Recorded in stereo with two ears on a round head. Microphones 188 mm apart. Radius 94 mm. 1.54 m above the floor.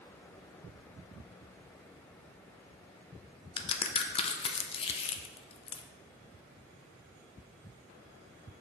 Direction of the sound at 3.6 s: 25° left (ahead or behind).